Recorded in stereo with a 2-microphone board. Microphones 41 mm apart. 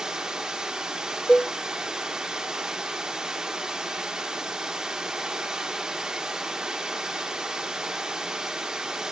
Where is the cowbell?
25° left (ahead or behind), 0.6 m.